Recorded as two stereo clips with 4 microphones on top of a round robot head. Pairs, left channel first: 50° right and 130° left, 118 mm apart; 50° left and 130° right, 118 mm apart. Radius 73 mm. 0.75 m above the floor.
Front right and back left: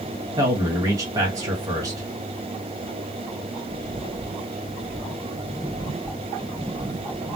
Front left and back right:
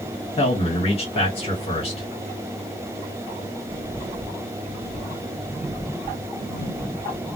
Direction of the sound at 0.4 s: 75° left.